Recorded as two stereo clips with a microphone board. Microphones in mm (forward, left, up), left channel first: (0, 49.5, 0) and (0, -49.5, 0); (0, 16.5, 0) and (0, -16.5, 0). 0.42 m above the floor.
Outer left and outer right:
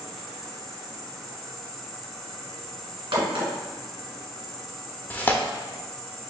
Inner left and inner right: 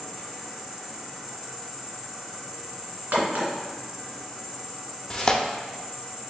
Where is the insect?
Centre (ahead or behind), 0.7 m.